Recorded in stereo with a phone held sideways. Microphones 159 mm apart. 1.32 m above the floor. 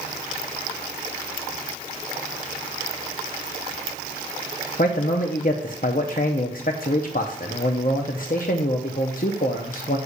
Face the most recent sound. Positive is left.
turn(degrees=60)  # may be behind; listen again after turning